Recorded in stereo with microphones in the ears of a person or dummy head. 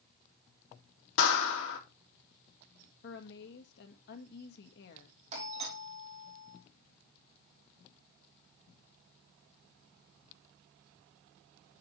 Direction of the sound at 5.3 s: 35° right (ahead or behind).